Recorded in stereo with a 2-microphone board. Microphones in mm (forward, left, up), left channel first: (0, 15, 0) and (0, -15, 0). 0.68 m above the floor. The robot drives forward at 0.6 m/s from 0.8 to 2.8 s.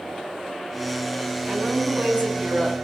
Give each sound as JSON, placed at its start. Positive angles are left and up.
{"t": 1.5, "sound": "a woman speaking", "side_deg": -55, "distance_m": 6.0}